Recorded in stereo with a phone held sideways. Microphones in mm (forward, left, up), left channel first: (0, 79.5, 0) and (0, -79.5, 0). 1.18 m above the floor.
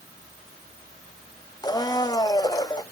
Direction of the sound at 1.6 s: 25° left (ahead or behind).